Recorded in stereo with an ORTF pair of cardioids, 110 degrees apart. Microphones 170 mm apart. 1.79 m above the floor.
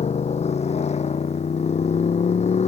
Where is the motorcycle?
35° left.